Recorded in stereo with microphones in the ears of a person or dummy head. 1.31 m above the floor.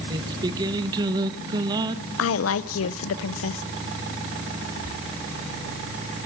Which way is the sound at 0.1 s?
20° right (ahead or behind).